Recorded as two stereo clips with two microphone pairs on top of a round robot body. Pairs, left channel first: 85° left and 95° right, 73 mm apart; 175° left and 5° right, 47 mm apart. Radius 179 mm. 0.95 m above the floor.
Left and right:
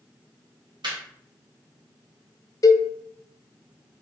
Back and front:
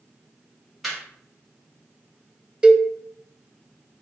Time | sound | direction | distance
0.8 | laughter | 95° right | 1.6 m
2.6 | a cowbell | 55° left | 0.6 m